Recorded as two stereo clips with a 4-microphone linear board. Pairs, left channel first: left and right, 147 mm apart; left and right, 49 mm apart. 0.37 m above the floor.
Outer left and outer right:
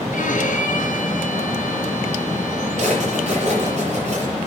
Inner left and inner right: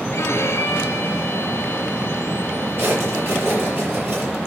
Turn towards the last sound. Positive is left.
turn(degrees=-55)  # may be behind; listen again after turning